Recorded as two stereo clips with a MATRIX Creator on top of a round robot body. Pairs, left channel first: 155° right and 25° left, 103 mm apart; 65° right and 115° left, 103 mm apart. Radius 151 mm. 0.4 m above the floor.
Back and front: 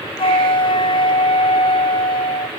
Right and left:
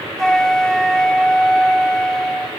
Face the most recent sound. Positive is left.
turn(degrees=-150)